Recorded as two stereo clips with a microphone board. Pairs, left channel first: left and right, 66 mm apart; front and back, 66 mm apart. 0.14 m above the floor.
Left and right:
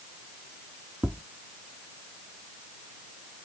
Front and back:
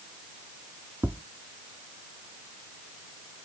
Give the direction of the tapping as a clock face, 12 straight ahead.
5 o'clock.